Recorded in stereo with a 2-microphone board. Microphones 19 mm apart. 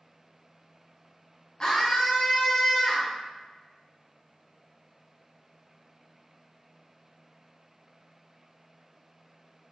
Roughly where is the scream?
Left.